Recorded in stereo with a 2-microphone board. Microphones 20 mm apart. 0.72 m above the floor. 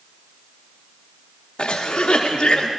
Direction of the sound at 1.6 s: 60° left (ahead or behind).